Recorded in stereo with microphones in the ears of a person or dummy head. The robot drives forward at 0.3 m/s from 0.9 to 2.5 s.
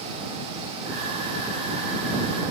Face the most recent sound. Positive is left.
No sound to turn to.